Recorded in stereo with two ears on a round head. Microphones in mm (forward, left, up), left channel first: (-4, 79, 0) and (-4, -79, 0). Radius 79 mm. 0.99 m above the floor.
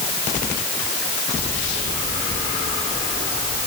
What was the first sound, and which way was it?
Only background noise.